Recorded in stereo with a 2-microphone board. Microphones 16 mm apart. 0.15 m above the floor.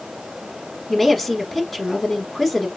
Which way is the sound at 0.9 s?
15° left (ahead or behind).